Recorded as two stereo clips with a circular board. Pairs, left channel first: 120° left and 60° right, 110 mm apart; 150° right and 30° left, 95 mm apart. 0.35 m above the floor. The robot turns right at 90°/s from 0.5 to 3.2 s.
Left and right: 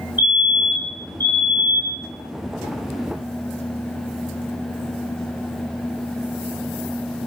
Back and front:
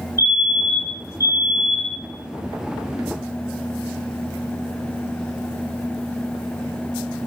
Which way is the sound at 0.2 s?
5° right.